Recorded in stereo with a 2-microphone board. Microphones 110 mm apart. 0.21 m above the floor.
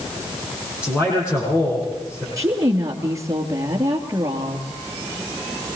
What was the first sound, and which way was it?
A man speaking, 25° left (ahead or behind).